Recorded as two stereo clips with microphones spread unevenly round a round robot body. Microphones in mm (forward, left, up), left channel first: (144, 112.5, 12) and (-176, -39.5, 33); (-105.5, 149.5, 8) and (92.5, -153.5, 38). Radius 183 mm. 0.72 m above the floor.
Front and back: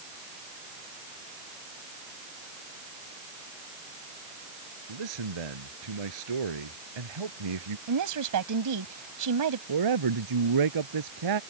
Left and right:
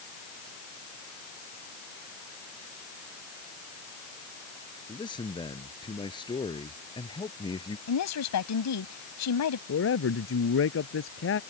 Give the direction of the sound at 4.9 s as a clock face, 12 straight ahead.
5 o'clock.